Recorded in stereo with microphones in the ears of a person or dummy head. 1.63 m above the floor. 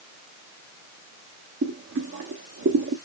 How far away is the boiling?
About 1.1 m.